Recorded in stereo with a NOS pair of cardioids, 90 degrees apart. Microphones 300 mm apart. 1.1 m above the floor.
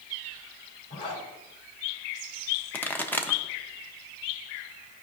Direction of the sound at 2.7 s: 5° left.